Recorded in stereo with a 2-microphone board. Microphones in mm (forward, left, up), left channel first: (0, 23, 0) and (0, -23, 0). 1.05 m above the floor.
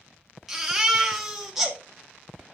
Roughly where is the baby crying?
Centre.